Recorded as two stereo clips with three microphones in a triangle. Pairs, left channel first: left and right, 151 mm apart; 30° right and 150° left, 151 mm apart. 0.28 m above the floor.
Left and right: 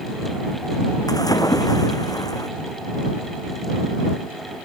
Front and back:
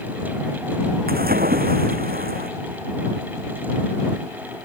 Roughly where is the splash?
Behind left.